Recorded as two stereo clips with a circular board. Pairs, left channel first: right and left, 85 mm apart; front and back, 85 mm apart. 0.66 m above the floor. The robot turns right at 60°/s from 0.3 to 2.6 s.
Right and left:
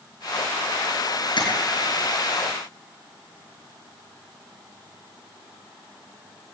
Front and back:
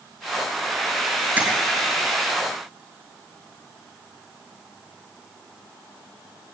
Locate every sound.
1.4 s tapping: 110° right, 4 m; by 1.5 s 105° right, 4 m